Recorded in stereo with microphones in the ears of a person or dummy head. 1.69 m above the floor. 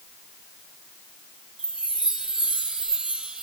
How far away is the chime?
About 1.4 m.